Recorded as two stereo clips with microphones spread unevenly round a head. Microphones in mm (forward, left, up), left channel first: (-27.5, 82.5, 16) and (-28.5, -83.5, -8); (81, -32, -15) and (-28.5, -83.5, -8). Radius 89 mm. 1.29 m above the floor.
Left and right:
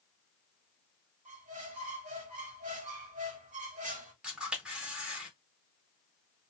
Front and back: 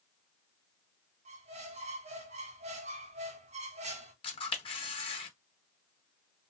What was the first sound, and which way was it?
A squeak, 135° right.